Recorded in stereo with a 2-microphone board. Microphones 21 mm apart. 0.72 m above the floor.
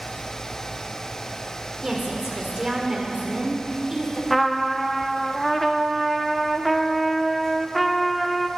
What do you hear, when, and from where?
1.8 s a woman speaking: 25° right (ahead or behind), 1.9 m
4.3 s a trumpet: centre (ahead or behind), 0.7 m